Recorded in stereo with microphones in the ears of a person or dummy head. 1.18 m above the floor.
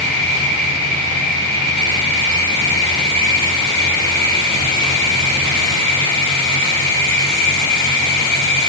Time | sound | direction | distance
0.0 | an insect | 40° right (ahead or behind) | 2.0 m